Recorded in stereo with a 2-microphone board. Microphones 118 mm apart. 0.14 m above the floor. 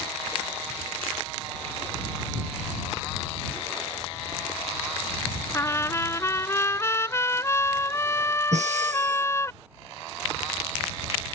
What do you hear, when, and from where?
5.5 s a trumpet: 25° left (ahead or behind)
8.5 s breathing: 80° right